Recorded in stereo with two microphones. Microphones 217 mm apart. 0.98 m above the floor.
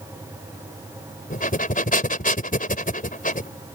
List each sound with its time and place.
1.3 s breathing: 40° left (ahead or behind)